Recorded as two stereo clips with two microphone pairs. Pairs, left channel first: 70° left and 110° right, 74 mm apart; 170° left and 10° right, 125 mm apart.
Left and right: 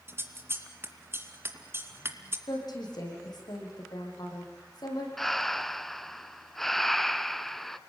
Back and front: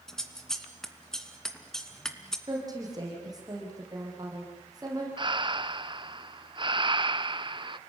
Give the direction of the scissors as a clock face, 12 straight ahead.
4 o'clock.